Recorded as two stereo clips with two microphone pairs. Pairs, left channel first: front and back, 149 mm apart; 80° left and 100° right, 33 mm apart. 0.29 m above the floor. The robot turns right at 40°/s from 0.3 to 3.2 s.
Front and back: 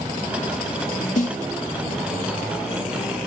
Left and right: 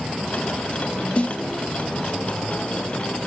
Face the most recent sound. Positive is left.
turn(degrees=110)